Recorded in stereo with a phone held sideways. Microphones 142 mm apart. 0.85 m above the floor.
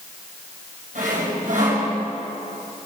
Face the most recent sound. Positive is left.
turn(degrees=-65)  # may be behind; listen again after turning